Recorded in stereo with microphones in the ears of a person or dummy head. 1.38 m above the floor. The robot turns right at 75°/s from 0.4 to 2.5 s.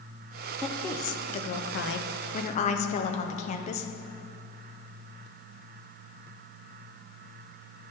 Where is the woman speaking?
5° right, 0.6 m; by 3.9 s 140° left, 0.6 m.